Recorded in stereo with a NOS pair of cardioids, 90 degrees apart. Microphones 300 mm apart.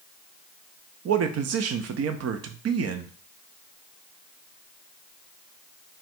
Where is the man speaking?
50° right, 0.6 m.